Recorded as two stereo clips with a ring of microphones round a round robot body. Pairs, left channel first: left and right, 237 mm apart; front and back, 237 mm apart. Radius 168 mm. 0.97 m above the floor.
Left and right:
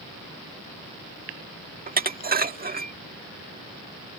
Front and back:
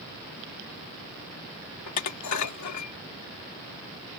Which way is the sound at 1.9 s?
35° right.